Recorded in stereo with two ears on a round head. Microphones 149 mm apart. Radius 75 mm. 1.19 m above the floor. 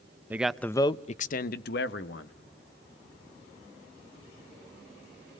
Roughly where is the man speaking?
Centre.